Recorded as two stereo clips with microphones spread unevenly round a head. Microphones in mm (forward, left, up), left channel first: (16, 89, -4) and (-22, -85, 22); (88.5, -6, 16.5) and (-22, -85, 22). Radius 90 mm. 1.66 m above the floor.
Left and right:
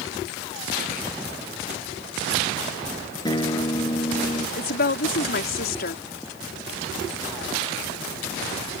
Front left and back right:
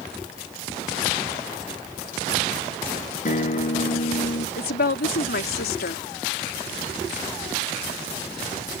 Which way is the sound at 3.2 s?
5° left.